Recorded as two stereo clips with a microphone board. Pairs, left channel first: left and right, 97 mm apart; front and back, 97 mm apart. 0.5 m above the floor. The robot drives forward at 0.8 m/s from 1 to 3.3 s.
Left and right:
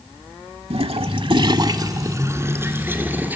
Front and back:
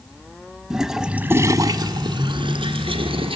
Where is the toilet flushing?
95° right, 0.7 m; by 3.4 s 160° right, 2 m.